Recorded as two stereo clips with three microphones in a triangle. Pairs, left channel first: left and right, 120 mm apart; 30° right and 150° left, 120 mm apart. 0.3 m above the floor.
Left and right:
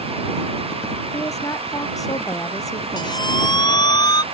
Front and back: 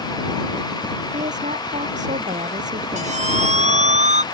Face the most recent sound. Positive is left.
turn(degrees=140)